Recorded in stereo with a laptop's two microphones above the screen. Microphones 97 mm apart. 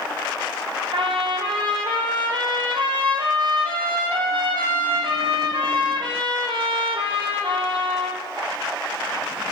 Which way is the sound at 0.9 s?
65° right (ahead or behind).